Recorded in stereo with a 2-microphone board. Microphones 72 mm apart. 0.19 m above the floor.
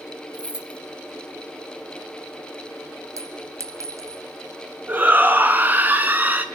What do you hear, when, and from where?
0.3 s keys jangling: 15° right (ahead or behind), 1.4 m
3.2 s a clink: 45° right (ahead or behind), 1.4 m
4.9 s a shout: 25° right (ahead or behind), 2.5 m